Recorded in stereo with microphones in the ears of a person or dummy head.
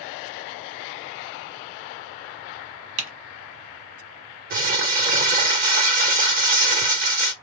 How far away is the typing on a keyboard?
About 1.4 m.